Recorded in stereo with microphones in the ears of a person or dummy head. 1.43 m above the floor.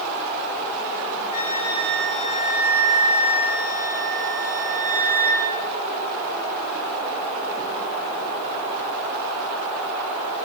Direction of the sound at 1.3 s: 45° left (ahead or behind).